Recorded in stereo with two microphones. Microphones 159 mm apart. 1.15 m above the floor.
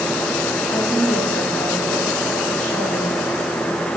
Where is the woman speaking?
55° left (ahead or behind), 6 m.